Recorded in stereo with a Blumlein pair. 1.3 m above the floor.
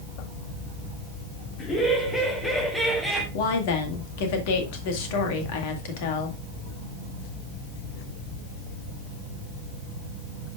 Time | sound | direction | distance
1.6 | laughter | 30° left | 3.5 m
3.3 | a woman speaking | 50° left | 2.0 m